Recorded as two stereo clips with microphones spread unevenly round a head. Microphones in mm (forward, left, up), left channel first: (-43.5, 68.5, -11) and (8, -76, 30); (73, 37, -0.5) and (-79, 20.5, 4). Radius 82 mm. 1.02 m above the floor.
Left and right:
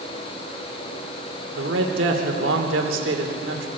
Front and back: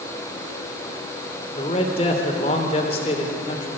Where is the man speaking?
50° right, 3 m.